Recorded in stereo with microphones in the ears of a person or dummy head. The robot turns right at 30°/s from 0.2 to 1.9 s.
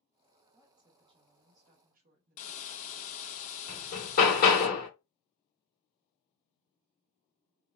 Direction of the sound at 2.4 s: 40° left (ahead or behind).